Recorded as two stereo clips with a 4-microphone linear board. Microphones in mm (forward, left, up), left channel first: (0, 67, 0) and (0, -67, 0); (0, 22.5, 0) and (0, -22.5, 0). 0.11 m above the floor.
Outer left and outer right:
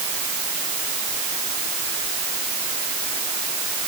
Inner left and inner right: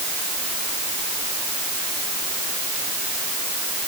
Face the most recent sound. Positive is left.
No sound to turn to.